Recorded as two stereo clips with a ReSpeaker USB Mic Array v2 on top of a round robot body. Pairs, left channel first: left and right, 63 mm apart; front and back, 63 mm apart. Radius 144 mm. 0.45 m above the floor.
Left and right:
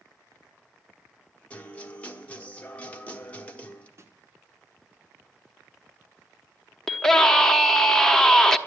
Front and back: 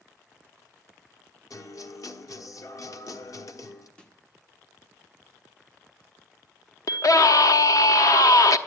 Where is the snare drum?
70° right, 1.6 m.